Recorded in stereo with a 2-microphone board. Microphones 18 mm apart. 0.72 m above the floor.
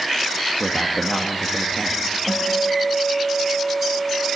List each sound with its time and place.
0.6 s a man speaking: 25° left (ahead or behind), 0.8 m
2.3 s a guitar: 35° left (ahead or behind), 1.6 m